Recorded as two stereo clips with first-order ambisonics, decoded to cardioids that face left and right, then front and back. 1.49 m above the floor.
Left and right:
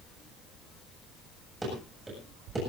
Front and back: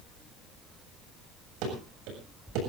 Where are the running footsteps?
170° right, 7 m.